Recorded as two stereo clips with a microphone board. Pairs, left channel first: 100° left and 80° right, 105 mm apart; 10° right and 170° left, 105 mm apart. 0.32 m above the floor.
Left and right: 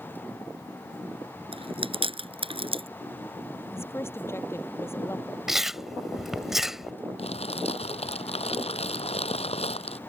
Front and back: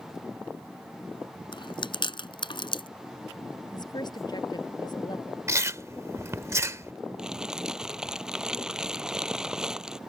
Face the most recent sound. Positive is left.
turn(degrees=85)